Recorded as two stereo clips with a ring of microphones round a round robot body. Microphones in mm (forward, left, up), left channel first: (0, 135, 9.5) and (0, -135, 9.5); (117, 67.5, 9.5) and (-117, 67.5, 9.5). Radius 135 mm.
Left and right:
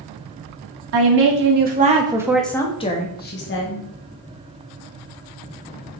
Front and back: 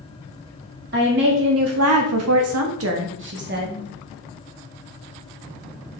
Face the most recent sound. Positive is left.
turn(degrees=130)